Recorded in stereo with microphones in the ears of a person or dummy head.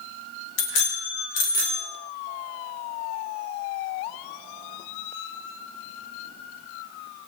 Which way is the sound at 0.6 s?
70° left (ahead or behind).